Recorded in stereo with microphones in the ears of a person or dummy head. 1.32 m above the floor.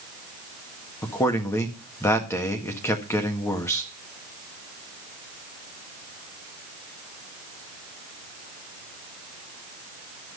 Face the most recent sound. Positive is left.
turn(degrees=15)  # may be behind; listen again after turning